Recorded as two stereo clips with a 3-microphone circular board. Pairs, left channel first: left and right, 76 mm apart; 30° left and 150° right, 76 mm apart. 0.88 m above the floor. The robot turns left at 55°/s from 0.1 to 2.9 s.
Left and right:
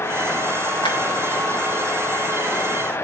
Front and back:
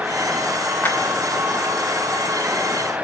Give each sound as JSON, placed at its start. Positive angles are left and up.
{"t": 0.8, "sound": "a clap", "azimuth_deg": 100, "distance_m": 3.0}